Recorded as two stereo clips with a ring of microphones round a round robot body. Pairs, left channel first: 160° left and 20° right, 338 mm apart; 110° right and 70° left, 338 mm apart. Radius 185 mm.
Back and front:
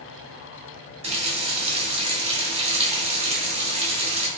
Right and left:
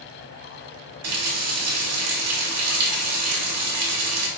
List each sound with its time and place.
1.0 s a running tap: 45° left, 1.0 m